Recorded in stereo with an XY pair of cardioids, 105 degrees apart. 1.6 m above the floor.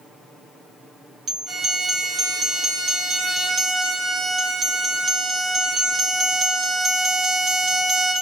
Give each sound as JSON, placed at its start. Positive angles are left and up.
{"t": 1.5, "sound": "a violin", "azimuth_deg": -50, "distance_m": 1.4}